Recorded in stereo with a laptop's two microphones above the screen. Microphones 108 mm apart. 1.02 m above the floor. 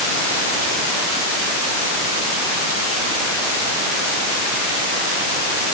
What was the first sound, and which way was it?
Only background noise.